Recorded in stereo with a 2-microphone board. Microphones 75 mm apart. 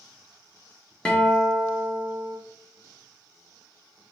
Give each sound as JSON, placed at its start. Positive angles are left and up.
{"t": 1.1, "sound": "a guitar", "side_deg": 10, "distance_m": 0.5}